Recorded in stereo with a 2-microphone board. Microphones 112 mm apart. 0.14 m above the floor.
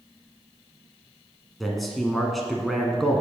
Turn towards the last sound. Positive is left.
turn(degrees=0)  # may be behind; listen again after turning